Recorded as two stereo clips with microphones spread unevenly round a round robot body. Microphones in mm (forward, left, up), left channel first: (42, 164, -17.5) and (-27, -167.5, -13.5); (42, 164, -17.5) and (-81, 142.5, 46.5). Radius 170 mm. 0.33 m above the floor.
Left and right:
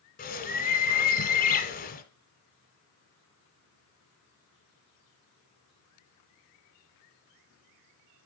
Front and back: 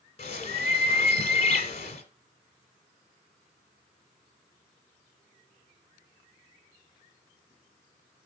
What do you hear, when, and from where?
0.2 s a bird: 15° left, 1.7 m